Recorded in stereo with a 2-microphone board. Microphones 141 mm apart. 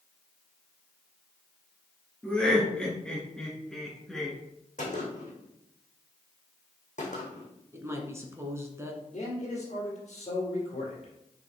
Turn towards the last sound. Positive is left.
turn(degrees=55)  # may be behind; listen again after turning